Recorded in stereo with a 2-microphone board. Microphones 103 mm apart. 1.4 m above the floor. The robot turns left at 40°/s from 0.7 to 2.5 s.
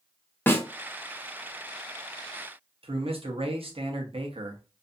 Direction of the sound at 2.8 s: 65° right (ahead or behind).